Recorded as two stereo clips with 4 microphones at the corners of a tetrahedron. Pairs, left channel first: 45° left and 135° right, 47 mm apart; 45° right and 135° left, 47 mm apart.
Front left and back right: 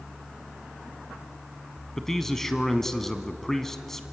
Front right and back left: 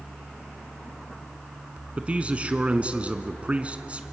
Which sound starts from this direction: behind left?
A man speaking, at 2.0 s.